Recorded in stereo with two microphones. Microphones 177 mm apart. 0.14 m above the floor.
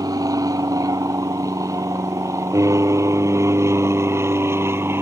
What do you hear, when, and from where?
0.0 s an aircraft: 20° right (ahead or behind); by 5.0 s 15° right (ahead or behind)